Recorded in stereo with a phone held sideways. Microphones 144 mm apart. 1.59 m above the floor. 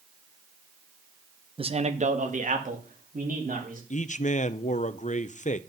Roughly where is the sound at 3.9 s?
Left.